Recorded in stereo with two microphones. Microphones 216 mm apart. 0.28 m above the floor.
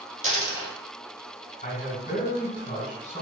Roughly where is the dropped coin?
Right.